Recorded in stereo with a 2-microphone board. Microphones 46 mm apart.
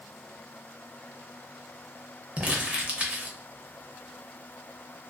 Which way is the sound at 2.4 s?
35° right (ahead or behind).